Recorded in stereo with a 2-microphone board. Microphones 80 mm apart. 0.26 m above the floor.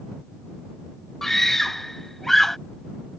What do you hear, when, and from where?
1.2 s a scream: 5° left (ahead or behind)